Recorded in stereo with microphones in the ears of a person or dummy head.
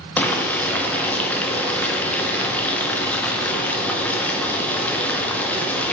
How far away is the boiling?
About 0.7 m.